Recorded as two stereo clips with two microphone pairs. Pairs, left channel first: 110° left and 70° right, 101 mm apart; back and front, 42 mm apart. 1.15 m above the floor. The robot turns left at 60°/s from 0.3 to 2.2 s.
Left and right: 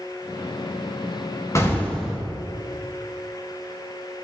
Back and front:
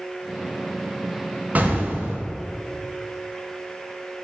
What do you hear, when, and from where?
1.6 s an explosion: 50° left, 1.2 m; by 2.2 s 10° left, 1.2 m